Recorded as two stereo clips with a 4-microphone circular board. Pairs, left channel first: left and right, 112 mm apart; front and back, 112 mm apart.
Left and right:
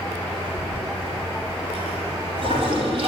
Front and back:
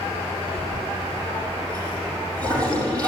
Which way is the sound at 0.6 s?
125° right.